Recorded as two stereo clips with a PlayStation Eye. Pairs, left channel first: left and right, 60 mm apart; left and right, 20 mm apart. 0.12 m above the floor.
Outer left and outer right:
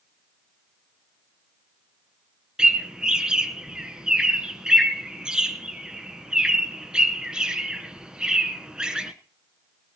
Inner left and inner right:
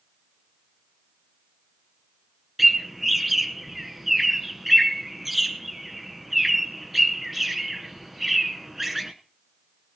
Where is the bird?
15° right (ahead or behind), 1.0 m.